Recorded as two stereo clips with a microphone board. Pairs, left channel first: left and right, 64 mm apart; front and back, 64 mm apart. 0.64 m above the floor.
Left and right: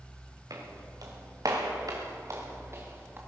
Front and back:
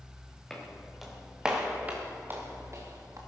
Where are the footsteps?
80° right, 3.5 m; by 3.2 s 145° right, 3.5 m.